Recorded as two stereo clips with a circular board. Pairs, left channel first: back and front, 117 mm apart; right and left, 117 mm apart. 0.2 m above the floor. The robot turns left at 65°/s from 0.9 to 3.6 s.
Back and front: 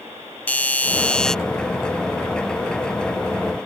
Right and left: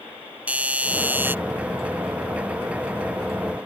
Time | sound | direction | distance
0.5 | a doorbell | 135° left | ?